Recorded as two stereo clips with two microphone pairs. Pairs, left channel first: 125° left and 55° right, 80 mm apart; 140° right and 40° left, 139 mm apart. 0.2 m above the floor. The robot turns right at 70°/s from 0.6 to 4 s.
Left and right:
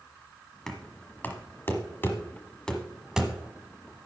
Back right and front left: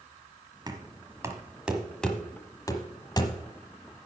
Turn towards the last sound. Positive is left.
turn(degrees=-80)